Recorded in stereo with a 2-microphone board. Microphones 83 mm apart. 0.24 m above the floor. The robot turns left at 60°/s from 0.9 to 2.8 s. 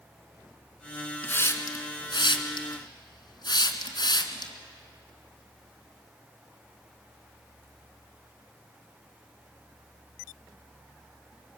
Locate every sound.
1.2 s a hiss: 20° left (ahead or behind), 2 m; by 4.5 s 55° left (ahead or behind), 2 m